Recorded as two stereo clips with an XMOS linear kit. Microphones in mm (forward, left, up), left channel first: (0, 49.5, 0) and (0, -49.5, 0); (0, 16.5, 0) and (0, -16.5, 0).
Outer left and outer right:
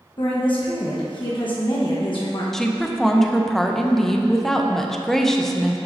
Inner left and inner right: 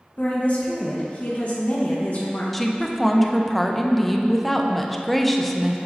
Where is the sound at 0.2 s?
55° left (ahead or behind), 1.1 m.